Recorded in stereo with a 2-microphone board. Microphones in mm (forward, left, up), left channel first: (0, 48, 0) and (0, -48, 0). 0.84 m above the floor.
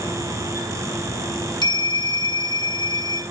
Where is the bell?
45° left (ahead or behind), 1.2 m.